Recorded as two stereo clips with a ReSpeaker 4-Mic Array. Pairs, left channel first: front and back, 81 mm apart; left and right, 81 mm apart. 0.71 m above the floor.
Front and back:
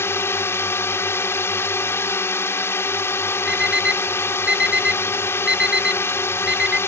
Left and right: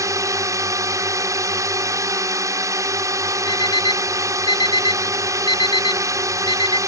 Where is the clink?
I don't hear a clink.